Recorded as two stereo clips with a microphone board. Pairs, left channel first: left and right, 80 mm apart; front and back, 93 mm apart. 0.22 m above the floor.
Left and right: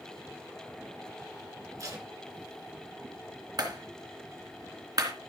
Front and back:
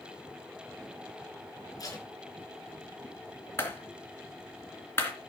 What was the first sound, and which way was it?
Tape being pulled, 45° right.